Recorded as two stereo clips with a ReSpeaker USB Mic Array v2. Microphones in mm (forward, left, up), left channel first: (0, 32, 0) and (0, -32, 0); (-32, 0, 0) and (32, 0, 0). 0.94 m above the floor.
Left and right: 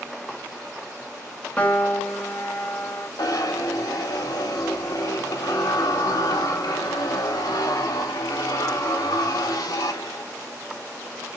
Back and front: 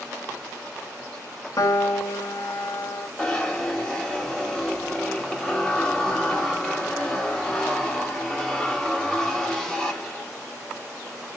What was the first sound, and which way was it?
A piano, 155° left.